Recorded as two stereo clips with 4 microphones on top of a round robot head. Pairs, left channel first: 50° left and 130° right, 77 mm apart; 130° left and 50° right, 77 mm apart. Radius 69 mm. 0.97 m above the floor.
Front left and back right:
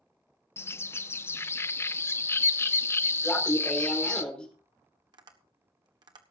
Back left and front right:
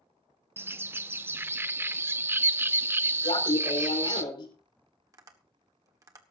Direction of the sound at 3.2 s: 125° left.